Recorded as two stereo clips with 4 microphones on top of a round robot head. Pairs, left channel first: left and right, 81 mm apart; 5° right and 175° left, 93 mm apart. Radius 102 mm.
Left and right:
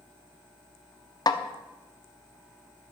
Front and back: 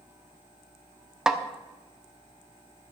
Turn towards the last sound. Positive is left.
turn(degrees=90)